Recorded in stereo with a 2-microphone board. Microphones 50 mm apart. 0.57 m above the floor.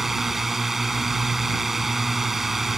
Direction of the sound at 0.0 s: 5° right (ahead or behind).